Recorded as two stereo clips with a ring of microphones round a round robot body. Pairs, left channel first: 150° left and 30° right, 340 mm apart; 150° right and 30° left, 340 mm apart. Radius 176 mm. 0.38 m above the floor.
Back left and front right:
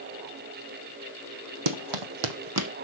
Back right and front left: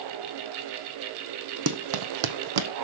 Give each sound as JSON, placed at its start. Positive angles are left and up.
{"t": 1.7, "sound": "running footsteps", "azimuth_deg": -20, "distance_m": 1.3}